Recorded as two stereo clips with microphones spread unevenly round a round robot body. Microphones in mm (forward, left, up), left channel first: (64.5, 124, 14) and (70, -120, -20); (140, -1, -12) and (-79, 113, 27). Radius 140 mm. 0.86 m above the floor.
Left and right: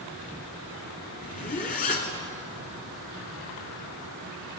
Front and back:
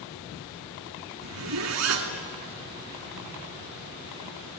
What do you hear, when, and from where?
1.2 s a zipper: 150° left, 2 m